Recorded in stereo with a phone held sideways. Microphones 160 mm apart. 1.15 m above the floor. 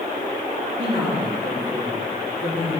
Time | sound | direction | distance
0.8 | a woman speaking | 55° right (ahead or behind) | 2 m